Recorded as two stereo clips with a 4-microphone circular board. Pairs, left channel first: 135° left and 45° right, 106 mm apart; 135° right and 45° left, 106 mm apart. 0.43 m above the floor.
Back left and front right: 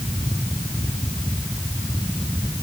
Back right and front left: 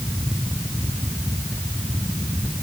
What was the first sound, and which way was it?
Only background noise.